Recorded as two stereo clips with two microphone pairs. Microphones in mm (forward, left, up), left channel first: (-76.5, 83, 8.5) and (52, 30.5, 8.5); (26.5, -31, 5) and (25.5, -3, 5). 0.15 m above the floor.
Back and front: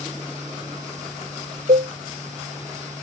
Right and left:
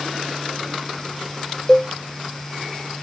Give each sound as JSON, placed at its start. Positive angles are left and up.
{"t": 1.7, "sound": "a cowbell", "azimuth_deg": -10}